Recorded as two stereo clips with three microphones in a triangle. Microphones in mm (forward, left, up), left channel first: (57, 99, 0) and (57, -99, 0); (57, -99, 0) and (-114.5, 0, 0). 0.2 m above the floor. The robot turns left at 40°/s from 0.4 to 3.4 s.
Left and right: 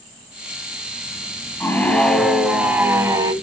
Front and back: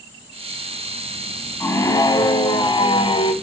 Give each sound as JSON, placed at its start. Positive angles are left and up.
{"t": 1.6, "sound": "a scream", "azimuth_deg": 25, "distance_m": 1.2}